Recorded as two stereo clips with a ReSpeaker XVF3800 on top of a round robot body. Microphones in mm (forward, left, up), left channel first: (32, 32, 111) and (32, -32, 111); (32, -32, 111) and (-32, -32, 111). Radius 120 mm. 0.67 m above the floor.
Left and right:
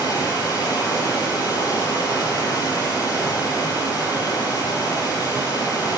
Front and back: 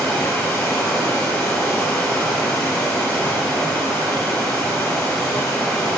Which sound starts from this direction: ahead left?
Running water, at 0.0 s.